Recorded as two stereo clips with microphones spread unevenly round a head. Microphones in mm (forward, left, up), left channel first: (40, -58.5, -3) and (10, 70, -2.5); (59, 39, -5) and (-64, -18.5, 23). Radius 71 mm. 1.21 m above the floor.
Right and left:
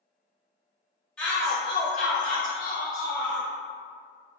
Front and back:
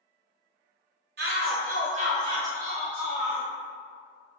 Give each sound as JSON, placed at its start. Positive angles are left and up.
{"t": 1.2, "sound": "a shout", "azimuth_deg": -160, "distance_m": 0.7}